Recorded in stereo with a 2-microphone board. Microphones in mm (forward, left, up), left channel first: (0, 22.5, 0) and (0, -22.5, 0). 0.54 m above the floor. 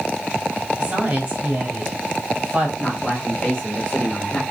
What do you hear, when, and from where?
0.8 s a woman speaking: 30° right (ahead or behind), 2.5 m
2.8 s a man speaking: 20° left (ahead or behind), 1.3 m